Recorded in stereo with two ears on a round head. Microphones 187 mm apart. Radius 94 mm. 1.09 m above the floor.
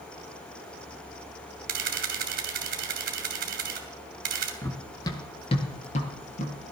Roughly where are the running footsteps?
Centre.